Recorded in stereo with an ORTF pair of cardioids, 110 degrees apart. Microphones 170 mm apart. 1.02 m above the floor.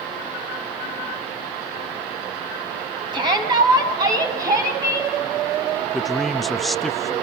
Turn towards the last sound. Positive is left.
turn(degrees=0)